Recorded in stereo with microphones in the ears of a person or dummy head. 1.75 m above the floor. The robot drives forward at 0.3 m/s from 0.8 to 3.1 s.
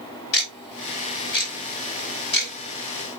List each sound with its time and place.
0.3 s ticking: 60° left (ahead or behind), 4.5 m; by 2.5 s 65° left (ahead or behind), 4.5 m